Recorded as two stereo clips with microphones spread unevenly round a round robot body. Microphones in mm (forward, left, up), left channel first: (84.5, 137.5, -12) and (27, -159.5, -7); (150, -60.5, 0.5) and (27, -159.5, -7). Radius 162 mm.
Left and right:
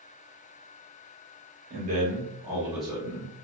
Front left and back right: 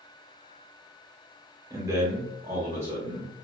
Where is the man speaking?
110° right, 1.0 m; by 3.3 s 150° left, 1.1 m.